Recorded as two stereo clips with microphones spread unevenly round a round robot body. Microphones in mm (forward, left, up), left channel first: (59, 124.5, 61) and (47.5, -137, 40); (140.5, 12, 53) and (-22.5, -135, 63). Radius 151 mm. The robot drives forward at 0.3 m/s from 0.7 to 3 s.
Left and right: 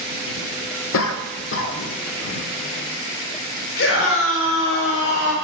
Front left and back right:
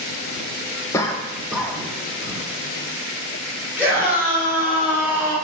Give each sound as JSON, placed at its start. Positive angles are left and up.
{"t": 0.9, "sound": "a cough", "azimuth_deg": 115, "distance_m": 0.7}
{"t": 3.8, "sound": "a scream", "azimuth_deg": 140, "distance_m": 3.0}